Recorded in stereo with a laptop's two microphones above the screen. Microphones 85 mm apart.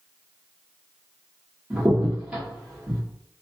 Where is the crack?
15° right (ahead or behind), 1.4 m.